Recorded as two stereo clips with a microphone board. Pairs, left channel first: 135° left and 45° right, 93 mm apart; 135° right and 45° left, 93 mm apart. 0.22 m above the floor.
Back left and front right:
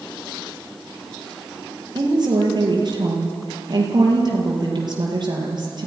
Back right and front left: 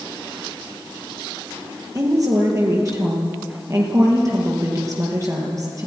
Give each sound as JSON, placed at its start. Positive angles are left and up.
{"t": 1.9, "sound": "a woman speaking", "azimuth_deg": -10, "distance_m": 6.0}